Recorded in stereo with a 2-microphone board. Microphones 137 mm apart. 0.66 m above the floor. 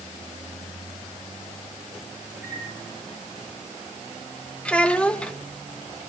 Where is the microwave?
15° right (ahead or behind), 5 m.